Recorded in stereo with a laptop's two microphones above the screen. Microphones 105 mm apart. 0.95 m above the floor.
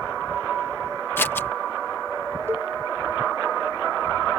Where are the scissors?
20° left (ahead or behind).